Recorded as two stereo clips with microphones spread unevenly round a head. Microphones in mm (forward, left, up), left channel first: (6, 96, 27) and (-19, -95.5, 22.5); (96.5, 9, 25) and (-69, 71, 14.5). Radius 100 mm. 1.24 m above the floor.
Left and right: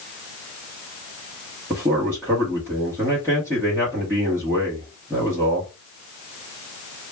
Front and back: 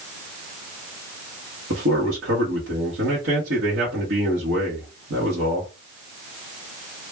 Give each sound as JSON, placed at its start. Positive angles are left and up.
{"t": 1.7, "sound": "a man speaking", "azimuth_deg": -175, "distance_m": 1.5}